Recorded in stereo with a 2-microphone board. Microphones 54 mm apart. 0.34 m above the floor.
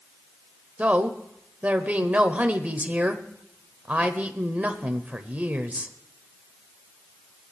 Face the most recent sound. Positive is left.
turn(degrees=-30)  # may be behind; listen again after turning